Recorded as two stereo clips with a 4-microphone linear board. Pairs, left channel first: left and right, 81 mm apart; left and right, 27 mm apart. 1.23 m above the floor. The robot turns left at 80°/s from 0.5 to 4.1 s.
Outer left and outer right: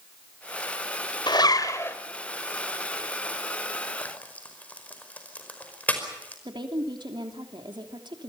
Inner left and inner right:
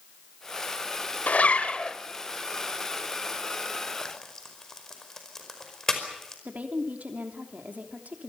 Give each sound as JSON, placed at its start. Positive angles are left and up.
{"t": 1.3, "sound": "a zipper", "azimuth_deg": 80, "distance_m": 1.7}
{"t": 4.0, "sound": "frying", "side_deg": 25, "distance_m": 5.0}
{"t": 6.5, "sound": "a woman speaking", "side_deg": -70, "distance_m": 3.0}